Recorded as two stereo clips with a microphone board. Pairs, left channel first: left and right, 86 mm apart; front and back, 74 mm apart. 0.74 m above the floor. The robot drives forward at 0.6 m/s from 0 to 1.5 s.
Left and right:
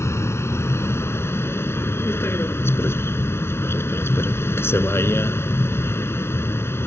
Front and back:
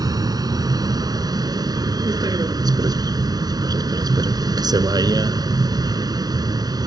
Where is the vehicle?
150° left.